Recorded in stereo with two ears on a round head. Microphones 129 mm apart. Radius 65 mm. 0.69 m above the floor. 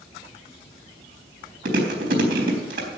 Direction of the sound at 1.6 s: 70° right (ahead or behind).